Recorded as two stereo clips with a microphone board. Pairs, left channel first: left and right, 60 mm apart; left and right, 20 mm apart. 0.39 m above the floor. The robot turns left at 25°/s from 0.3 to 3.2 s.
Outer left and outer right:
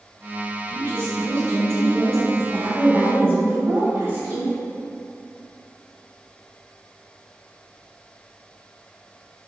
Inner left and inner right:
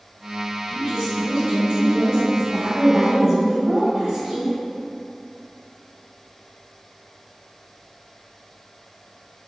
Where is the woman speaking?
55° right, 1.9 m; by 4.5 s 120° right, 1.9 m.